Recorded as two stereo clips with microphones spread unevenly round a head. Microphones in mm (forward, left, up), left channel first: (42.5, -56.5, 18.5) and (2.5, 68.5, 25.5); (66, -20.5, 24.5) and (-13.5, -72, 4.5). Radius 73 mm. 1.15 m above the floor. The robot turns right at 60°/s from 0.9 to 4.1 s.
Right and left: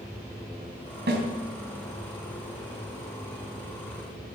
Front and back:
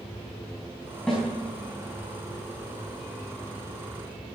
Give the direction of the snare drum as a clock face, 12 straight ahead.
8 o'clock.